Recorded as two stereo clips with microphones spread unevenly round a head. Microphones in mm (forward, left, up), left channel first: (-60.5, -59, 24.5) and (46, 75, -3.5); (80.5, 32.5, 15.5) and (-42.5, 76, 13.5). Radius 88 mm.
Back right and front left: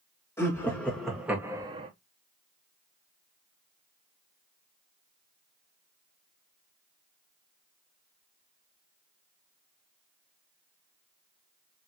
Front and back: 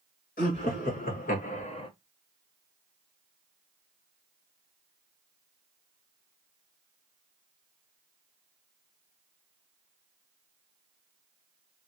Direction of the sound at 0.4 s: 50° right.